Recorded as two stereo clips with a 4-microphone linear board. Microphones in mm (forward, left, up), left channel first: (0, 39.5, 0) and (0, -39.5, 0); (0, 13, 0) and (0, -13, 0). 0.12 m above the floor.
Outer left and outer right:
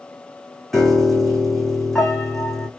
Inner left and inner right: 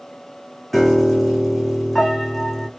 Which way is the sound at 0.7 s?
5° left (ahead or behind).